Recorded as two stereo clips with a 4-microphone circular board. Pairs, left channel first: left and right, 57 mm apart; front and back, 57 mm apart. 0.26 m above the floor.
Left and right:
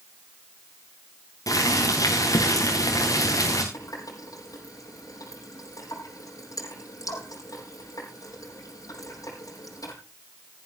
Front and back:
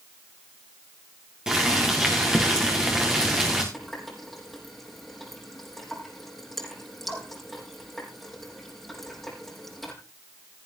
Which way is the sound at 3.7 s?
90° left.